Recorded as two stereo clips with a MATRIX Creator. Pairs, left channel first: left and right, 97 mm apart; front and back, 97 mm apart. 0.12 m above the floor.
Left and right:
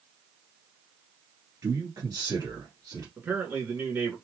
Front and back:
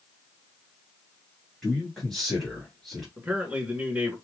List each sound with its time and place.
1.6 s a man speaking: 85° right, 1.9 m
3.2 s a man speaking: 125° right, 1.4 m